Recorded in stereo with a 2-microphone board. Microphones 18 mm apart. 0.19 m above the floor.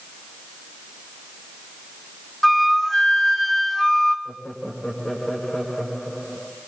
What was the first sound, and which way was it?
A flute, 20° left (ahead or behind).